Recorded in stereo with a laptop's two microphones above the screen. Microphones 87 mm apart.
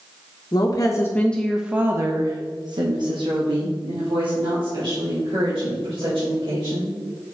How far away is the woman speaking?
About 0.8 m.